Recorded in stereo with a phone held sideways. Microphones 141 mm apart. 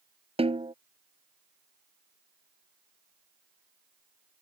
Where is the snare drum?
45° right (ahead or behind).